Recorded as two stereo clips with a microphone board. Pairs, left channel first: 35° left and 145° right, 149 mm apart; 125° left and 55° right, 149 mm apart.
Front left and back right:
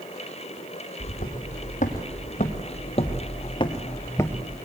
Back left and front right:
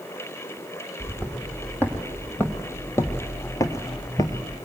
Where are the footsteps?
45° left, 2.5 m; by 4.6 s 105° left, 1.2 m.